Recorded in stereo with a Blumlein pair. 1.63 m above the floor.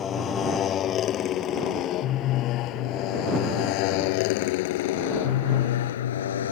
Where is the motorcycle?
25° left; by 6.5 s 65° left.